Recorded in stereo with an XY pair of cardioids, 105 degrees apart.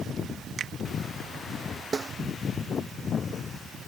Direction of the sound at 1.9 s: 25° right.